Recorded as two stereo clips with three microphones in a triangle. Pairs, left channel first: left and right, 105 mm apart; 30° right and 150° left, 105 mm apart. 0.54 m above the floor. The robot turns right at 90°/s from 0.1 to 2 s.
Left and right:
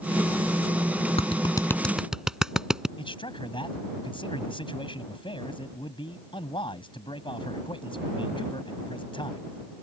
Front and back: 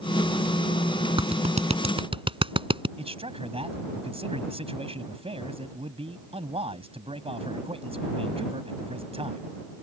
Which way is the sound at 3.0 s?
125° left.